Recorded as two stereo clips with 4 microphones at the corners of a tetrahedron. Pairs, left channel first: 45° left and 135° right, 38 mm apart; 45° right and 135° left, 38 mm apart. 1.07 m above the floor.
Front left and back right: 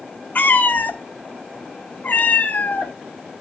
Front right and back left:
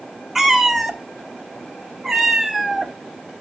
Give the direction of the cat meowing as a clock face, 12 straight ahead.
10 o'clock.